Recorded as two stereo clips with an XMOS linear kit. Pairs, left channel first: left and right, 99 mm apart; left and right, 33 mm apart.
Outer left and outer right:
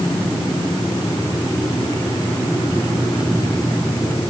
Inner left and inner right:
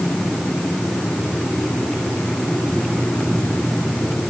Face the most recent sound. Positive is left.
No sound to turn to.